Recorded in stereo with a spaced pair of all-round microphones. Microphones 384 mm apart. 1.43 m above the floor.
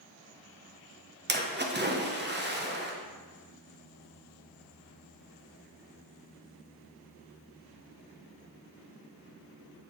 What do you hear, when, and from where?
1.3 s a splash: 25° right (ahead or behind), 1.0 m